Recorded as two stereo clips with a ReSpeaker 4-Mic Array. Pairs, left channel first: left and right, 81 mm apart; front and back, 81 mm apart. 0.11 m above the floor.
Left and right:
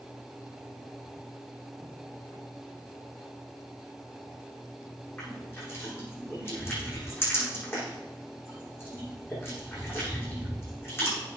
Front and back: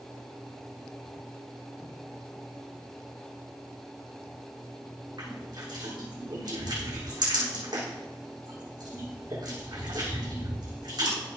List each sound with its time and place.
5.2 s crushing: 150° left, 7.5 m